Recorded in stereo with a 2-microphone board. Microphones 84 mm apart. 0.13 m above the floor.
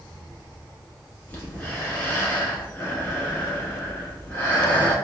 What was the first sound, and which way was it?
Breathing, 20° left (ahead or behind).